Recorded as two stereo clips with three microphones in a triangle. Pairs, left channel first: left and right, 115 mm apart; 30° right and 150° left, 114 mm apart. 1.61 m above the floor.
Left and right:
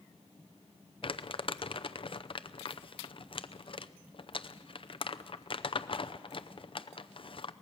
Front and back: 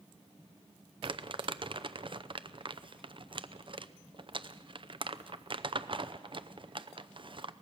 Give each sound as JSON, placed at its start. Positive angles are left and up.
{"t": 1.0, "sound": "crumpling", "azimuth_deg": 120, "distance_m": 0.6}